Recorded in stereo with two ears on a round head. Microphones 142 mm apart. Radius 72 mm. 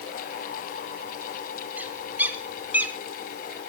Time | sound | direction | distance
1.8 | a bird | 10° right (ahead or behind) | 2 m